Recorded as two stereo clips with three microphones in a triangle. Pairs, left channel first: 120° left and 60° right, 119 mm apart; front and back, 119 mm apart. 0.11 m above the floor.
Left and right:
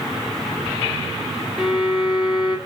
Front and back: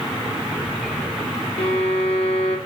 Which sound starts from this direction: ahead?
A violin, at 1.6 s.